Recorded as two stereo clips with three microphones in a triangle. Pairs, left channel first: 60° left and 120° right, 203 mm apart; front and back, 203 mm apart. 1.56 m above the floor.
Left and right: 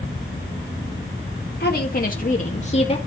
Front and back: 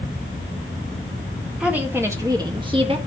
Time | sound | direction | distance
1.6 | a woman speaking | 95° left | 1.9 m